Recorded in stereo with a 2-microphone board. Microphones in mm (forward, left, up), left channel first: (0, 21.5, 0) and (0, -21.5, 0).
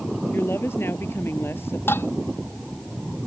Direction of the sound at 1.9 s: 75° left (ahead or behind).